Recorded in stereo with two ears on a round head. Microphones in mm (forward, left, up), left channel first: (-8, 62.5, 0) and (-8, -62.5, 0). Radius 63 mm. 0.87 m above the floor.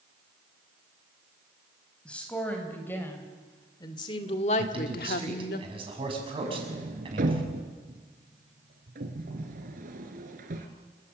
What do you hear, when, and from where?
2.0 s a woman speaking: 10° left (ahead or behind), 4.5 m; by 5.6 s 75° left (ahead or behind), 1.7 m
4.6 s a man speaking: 40° right (ahead or behind), 6.5 m
6.4 s a sliding door: 70° right (ahead or behind), 2.5 m